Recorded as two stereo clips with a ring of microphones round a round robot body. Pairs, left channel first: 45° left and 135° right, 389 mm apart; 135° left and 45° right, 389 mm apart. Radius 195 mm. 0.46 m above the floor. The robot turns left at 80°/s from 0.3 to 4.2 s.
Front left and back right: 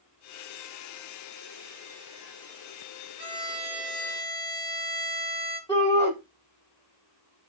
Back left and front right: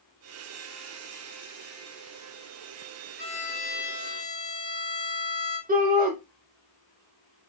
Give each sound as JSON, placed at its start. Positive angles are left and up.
{"t": 3.2, "sound": "a violin", "azimuth_deg": -175, "distance_m": 1.8}
{"t": 5.7, "sound": "a shout", "azimuth_deg": -25, "distance_m": 0.8}